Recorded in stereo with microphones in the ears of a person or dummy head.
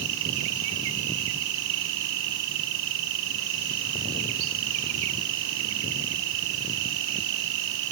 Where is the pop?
I don't hear a pop.